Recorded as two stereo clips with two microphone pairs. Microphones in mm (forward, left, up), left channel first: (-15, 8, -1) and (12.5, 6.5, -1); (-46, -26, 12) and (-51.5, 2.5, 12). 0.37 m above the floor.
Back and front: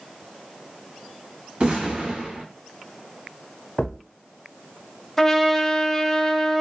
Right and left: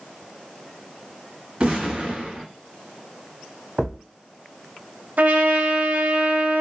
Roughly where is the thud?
Behind left.